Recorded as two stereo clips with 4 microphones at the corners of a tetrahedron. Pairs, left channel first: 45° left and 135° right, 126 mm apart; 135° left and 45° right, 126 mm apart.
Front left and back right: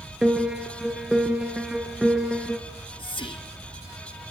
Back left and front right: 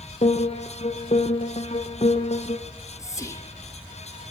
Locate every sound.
0.2 s a piano: 140° left, 2 m
2.7 s whispering: 75° left, 1.8 m